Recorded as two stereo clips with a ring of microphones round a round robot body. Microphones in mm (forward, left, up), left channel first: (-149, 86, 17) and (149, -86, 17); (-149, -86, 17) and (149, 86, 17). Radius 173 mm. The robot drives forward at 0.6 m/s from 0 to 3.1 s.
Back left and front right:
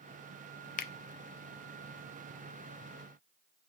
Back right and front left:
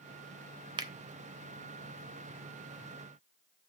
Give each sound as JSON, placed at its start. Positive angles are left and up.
{"t": 0.8, "sound": "a finger snap", "azimuth_deg": 100, "distance_m": 0.5}